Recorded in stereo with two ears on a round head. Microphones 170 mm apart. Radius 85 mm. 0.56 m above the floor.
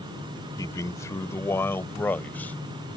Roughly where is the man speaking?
Centre.